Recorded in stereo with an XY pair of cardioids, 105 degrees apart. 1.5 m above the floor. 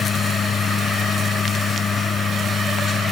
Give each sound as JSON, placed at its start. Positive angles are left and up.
{"t": 0.0, "sound": "a machine running", "azimuth_deg": 45}